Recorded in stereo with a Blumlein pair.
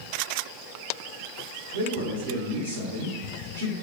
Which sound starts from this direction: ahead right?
A man speaking, at 1.7 s.